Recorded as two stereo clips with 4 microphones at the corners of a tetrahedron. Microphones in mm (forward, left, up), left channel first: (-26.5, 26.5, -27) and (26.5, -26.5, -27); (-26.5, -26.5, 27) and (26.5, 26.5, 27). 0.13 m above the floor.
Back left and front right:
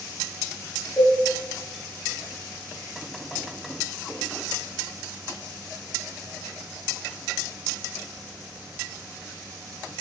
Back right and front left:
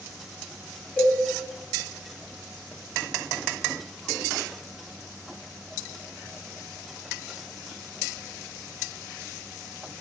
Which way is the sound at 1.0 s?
165° left.